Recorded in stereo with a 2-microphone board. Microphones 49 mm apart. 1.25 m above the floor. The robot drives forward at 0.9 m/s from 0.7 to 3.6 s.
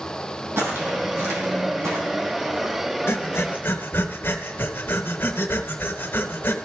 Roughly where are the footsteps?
Right.